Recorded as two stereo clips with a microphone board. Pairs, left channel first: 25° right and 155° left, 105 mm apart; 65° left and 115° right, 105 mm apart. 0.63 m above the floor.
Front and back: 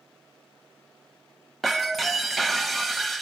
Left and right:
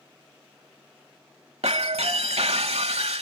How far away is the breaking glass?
About 1.1 m.